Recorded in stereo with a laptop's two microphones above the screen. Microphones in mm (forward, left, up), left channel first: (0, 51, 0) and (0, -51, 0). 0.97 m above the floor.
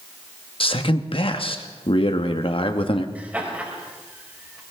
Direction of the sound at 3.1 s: 15° right (ahead or behind).